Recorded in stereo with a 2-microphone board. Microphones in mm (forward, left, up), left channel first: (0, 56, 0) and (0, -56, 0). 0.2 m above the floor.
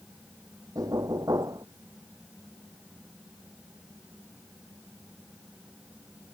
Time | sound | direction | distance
0.8 | knocking | 35° right (ahead or behind) | ?